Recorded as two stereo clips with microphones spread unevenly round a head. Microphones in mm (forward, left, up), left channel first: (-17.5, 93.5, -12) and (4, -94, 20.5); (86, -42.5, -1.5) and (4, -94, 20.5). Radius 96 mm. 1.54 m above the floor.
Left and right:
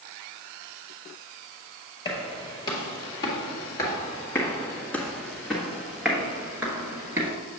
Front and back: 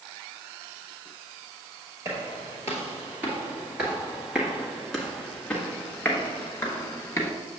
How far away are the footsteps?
About 2 m.